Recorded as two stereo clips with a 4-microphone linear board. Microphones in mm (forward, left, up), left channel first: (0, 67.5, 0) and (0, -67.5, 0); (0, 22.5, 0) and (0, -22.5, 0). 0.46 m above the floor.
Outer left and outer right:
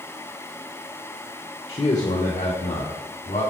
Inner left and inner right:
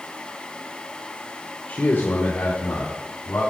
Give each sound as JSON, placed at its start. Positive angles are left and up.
{"t": 1.7, "sound": "a man speaking", "side_deg": 40, "distance_m": 0.9}